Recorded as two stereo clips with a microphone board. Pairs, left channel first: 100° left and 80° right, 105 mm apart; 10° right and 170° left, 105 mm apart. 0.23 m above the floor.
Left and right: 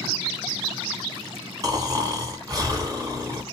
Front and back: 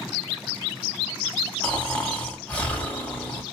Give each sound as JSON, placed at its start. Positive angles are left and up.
{"t": 1.6, "sound": "snoring", "azimuth_deg": -80, "distance_m": 1.6}